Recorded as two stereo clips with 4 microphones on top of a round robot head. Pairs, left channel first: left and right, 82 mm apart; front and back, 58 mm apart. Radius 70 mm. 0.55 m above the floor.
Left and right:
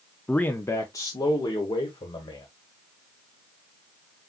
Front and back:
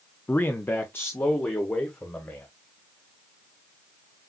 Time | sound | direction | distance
0.3 | a man speaking | 20° left | 0.7 m